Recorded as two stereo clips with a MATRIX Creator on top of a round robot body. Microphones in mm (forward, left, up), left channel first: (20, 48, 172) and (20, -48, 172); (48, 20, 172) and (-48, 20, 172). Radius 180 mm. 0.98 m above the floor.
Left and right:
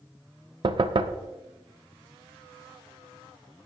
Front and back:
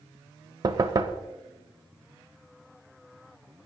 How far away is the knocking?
About 0.6 m.